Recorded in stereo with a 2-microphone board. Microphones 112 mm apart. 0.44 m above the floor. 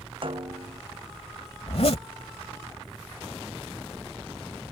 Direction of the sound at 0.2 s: 50° right (ahead or behind).